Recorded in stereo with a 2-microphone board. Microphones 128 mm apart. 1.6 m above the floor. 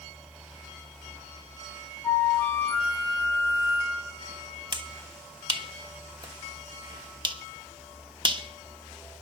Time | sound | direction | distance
2.0 | a flute | 20° left (ahead or behind) | 2.5 m
4.7 | a finger snap | 35° right (ahead or behind) | 1.1 m